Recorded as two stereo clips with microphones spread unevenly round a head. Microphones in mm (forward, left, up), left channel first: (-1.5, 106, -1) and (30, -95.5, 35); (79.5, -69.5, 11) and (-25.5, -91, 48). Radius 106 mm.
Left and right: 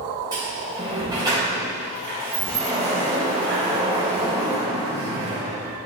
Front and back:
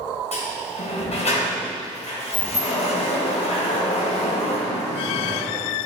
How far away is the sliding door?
About 4 m.